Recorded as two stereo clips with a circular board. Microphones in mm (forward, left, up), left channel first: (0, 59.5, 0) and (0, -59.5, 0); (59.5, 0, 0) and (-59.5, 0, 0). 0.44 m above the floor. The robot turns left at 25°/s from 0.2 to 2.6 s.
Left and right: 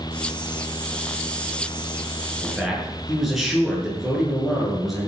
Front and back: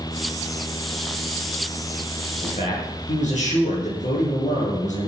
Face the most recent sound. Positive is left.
turn(degrees=0)